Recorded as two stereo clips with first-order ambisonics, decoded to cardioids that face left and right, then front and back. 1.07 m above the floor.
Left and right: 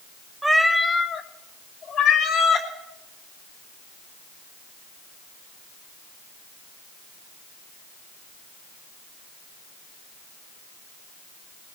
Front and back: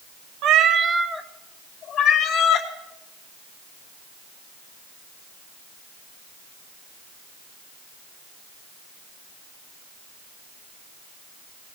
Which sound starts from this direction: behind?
A cat meowing, at 0.4 s.